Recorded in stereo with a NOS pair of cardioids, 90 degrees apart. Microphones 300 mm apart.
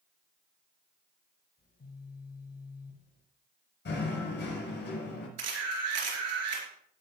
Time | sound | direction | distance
1.6 | a phone buzzing | 30° left | 4 m
3.9 | knocking | 35° left | 6 m
5.4 | a camera shutter | 60° right | 4 m